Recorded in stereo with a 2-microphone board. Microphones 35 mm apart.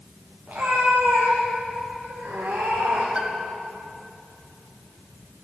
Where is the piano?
30° right (ahead or behind), 1.2 m.